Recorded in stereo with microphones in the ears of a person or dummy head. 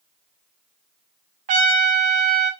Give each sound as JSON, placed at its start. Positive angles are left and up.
{"t": 1.5, "sound": "a trumpet", "side_deg": -40, "distance_m": 0.5}